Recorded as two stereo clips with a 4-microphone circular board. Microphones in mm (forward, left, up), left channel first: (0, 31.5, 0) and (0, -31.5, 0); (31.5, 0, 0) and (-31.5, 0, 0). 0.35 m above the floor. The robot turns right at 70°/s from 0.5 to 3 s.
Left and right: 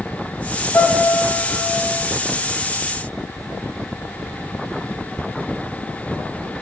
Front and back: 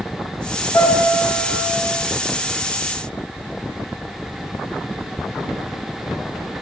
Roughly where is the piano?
Ahead left.